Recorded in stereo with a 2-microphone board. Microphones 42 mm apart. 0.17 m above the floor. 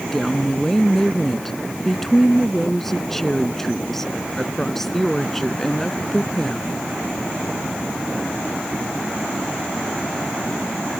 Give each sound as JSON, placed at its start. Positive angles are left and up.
{"t": 0.1, "sound": "a woman speaking", "side_deg": 10}